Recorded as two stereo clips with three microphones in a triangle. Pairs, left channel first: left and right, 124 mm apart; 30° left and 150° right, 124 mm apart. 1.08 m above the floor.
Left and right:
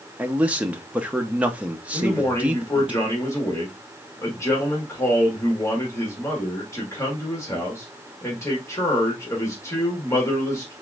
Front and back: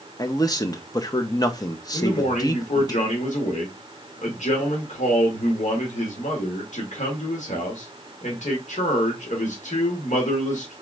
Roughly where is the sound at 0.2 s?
Ahead.